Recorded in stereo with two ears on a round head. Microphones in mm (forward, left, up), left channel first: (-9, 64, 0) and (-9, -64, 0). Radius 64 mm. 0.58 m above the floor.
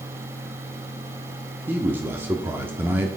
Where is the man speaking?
15° right (ahead or behind), 0.9 m.